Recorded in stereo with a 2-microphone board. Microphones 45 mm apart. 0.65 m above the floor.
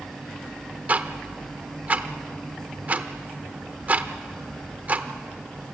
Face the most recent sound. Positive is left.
turn(degrees=-35)  # may be behind; listen again after turning